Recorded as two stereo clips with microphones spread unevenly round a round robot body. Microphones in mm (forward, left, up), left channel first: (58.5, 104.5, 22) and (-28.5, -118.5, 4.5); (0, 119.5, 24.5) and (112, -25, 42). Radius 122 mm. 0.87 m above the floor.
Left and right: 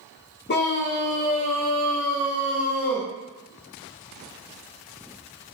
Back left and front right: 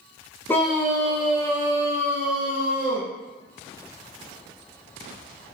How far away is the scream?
About 0.5 m.